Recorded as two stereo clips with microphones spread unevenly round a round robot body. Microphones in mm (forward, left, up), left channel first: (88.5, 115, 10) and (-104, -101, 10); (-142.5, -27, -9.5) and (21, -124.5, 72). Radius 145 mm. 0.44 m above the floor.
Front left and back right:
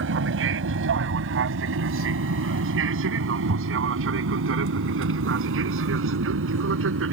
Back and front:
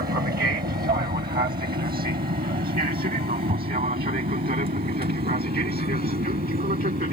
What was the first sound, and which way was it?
An aircraft, 85° right.